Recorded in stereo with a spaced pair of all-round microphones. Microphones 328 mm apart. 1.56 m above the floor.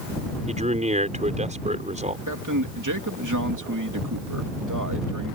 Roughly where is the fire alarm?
No fire alarm in this recording.